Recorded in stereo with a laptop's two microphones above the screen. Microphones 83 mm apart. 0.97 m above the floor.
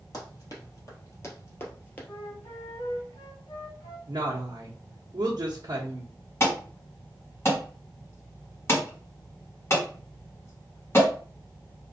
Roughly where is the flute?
Left.